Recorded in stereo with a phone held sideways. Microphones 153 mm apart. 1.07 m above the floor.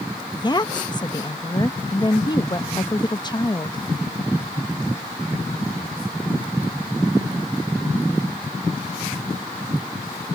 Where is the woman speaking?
30° left (ahead or behind).